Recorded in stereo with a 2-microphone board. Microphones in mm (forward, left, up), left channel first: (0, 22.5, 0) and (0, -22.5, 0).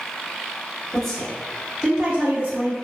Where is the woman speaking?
10° left (ahead or behind), 1.4 m; by 2.8 s 35° right (ahead or behind), 1.5 m.